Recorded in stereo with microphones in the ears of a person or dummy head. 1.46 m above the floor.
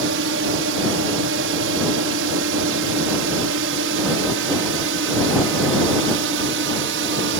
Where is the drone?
65° right (ahead or behind).